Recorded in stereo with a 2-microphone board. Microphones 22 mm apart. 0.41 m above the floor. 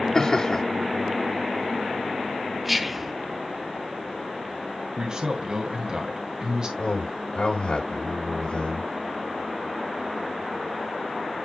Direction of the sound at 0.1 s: 30° left (ahead or behind).